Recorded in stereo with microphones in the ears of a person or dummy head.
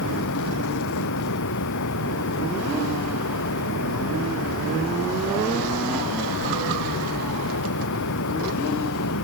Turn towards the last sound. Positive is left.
turn(degrees=65)  # may be behind; listen again after turning